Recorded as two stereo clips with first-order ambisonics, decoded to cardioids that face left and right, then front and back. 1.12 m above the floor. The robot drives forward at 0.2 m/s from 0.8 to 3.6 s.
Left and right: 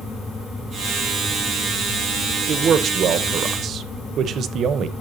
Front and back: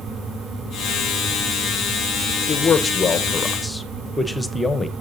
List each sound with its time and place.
2.5 s a man speaking: 50° right, 0.7 m; by 4.9 s 80° right, 0.6 m